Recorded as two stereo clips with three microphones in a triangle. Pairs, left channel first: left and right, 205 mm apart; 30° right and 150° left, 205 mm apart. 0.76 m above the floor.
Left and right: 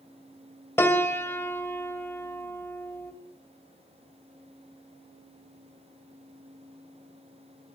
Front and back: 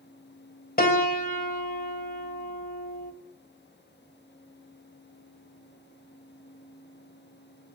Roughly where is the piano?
Ahead.